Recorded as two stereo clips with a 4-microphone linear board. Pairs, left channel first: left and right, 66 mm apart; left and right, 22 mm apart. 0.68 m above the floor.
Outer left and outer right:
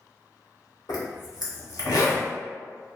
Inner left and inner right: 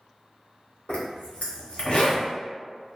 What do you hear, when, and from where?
0.9 s a zipper: 75° left (ahead or behind), 0.8 m